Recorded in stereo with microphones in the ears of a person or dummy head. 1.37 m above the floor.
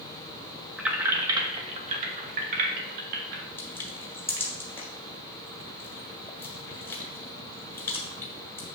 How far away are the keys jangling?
About 1.0 m.